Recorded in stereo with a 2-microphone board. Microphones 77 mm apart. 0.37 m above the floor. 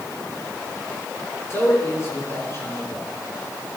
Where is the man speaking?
35° left (ahead or behind), 5.5 m.